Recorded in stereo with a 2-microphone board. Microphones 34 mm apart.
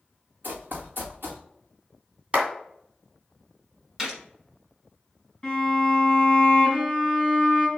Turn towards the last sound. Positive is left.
turn(degrees=20)  # may be behind; listen again after turning